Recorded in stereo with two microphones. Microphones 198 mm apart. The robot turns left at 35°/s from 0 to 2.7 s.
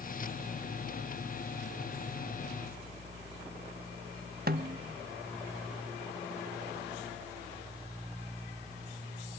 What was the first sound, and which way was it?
A snare drum, 50° right (ahead or behind).